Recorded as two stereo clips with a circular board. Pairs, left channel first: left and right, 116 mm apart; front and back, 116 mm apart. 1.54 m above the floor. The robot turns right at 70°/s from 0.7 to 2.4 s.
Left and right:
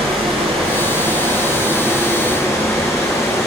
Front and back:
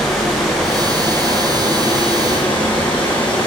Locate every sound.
0.0 s running water: 90° right, 0.8 m; by 3.5 s 25° left, 0.8 m